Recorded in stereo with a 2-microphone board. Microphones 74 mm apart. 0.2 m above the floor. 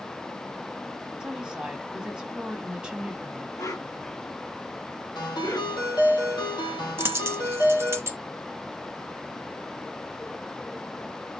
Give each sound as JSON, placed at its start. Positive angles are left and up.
{"t": 1.2, "sound": "a woman speaking", "side_deg": -15, "distance_m": 1.1}
{"t": 3.6, "sound": "a whoosh", "side_deg": 60, "distance_m": 2.5}
{"t": 5.2, "sound": "a ringtone", "side_deg": 80, "distance_m": 3.0}
{"t": 7.0, "sound": "a dropped coin", "side_deg": -40, "distance_m": 0.6}